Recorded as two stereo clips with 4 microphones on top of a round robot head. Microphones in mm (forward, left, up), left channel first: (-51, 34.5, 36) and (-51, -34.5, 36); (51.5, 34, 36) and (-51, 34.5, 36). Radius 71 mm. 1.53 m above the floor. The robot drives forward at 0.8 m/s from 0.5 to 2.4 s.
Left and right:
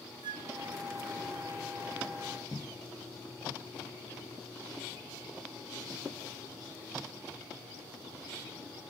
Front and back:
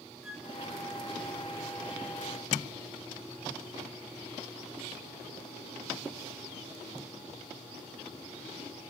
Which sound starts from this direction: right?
A flute, at 0.2 s.